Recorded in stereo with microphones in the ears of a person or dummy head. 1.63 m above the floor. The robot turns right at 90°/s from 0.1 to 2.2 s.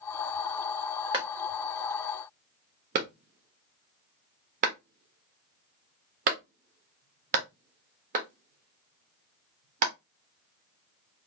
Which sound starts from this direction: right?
A clap, at 1.1 s.